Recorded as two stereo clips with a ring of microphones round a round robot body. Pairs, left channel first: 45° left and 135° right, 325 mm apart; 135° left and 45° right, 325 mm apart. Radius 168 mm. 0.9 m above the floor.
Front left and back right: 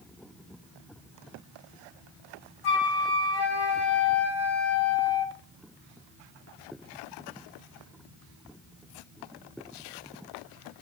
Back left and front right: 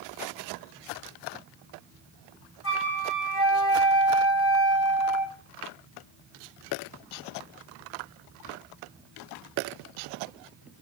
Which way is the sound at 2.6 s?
80° left.